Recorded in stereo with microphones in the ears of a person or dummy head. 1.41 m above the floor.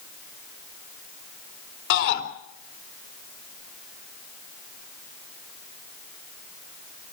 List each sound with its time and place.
1.9 s a shout: 65° left (ahead or behind), 4 m